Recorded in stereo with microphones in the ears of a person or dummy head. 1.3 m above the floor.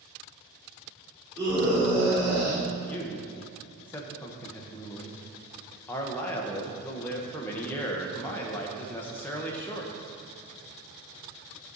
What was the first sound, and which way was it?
A scream, 30° right (ahead or behind).